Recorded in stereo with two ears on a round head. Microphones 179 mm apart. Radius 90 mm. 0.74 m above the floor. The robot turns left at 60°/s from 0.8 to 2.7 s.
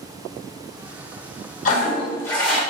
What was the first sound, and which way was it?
A toilet flushing, 50° left.